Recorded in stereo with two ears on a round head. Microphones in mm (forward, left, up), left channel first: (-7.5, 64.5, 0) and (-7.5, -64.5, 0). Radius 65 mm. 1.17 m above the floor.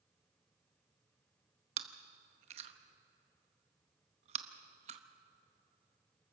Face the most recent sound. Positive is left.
turn(degrees=-45)  # may be behind; listen again after turning